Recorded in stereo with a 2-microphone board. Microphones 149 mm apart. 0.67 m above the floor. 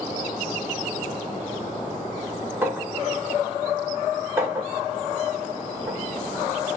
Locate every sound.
2.6 s a clink: 15° right (ahead or behind), 1.7 m